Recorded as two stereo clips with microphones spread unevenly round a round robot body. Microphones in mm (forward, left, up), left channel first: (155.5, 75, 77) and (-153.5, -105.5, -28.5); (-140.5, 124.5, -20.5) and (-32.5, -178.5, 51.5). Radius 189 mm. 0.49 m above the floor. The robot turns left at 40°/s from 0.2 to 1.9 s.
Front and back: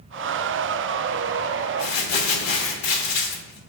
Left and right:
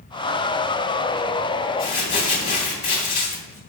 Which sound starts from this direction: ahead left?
Crumpling, at 1.8 s.